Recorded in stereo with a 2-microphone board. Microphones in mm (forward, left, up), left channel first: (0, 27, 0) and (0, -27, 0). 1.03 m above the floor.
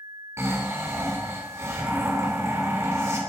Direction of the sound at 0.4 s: 55° right (ahead or behind).